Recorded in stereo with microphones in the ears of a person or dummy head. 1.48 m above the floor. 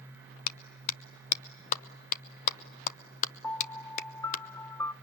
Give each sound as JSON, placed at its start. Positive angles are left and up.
{"t": 0.5, "sound": "a clap", "side_deg": 45, "distance_m": 0.7}
{"t": 3.4, "sound": "a piano", "side_deg": 10, "distance_m": 0.5}